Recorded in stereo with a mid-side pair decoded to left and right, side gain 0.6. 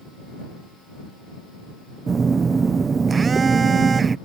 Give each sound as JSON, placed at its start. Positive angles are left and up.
{"t": 2.1, "sound": "a phone buzzing", "azimuth_deg": -30}